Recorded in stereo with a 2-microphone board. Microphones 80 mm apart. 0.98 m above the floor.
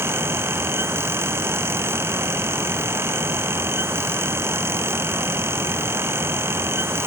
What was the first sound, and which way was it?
Only background noise.